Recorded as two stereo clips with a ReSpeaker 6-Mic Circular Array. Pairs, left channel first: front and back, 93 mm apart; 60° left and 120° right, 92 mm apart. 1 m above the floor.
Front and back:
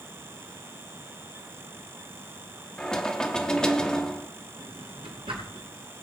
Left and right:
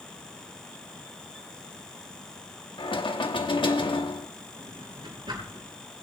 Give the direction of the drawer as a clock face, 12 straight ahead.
5 o'clock.